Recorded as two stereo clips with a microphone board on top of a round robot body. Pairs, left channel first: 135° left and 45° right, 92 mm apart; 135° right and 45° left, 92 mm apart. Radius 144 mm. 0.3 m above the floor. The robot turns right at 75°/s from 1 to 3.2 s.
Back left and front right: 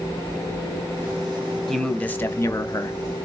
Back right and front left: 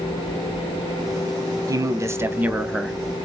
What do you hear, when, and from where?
1.7 s a man speaking: 45° left, 1.1 m; by 3.0 s 140° left, 1.1 m